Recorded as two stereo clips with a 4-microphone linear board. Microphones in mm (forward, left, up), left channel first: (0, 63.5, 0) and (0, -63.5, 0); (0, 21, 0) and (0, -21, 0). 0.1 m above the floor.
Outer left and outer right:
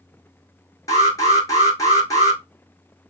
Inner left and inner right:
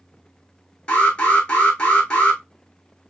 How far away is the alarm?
About 3.5 m.